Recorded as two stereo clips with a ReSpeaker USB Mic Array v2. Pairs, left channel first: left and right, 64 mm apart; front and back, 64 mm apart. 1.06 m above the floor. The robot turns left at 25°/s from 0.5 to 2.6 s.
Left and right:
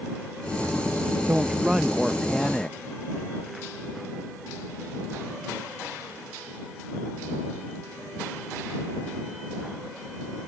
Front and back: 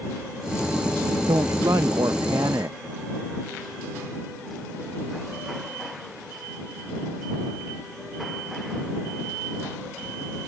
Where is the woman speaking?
160° right; by 2.8 s 165° left.